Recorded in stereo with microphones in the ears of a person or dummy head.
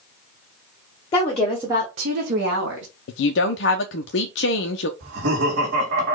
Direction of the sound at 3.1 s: 70° left (ahead or behind).